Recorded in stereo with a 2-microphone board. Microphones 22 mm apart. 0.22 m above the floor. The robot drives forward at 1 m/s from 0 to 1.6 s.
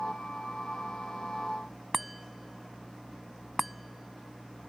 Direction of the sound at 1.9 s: Centre (ahead or behind).